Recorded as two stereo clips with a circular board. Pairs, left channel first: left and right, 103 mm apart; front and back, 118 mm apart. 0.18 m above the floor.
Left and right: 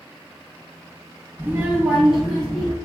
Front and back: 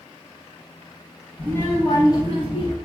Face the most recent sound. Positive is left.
turn(degrees=5)